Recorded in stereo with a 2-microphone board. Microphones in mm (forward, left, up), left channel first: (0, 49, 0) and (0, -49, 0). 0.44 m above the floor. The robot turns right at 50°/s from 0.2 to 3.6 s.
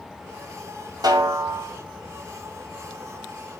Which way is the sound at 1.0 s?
130° right.